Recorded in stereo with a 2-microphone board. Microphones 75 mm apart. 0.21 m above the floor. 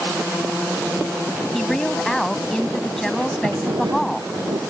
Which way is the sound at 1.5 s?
5° left (ahead or behind).